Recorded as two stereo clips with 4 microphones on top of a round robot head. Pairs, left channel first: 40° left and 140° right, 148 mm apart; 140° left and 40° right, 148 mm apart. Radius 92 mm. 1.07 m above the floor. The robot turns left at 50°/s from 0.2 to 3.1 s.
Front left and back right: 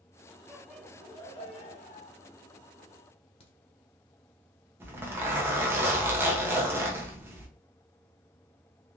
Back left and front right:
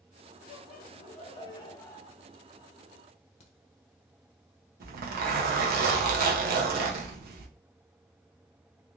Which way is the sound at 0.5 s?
135° left.